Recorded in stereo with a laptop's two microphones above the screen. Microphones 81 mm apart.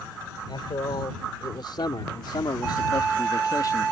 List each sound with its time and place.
0.5 s a man speaking: 70° left (ahead or behind); by 3.9 s 45° left (ahead or behind)